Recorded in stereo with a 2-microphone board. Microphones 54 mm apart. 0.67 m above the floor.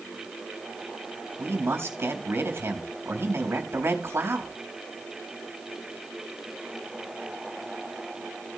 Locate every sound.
1.4 s a man speaking: 50° right (ahead or behind), 3.5 m